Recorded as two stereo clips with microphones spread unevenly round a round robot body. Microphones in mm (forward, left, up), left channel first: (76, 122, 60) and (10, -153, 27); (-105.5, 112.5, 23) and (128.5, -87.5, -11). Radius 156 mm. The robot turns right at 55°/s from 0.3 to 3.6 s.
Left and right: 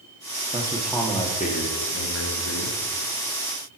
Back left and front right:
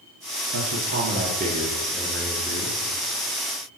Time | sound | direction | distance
0.5 | a man speaking | 40° right | 1.3 m